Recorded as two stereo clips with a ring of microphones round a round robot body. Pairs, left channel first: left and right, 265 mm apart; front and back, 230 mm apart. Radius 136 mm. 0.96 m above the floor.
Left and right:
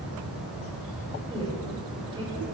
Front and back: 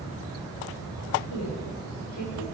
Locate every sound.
1.3 s a woman speaking: 20° right, 3.5 m